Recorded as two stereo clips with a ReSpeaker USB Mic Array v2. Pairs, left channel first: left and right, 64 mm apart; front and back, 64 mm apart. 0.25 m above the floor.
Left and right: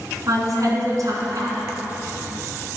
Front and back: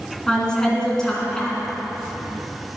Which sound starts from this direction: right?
A woman speaking, at 0.3 s.